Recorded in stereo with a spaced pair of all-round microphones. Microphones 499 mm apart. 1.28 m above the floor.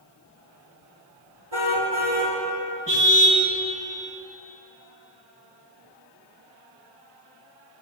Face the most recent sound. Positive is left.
turn(degrees=-25)  # may be behind; listen again after turning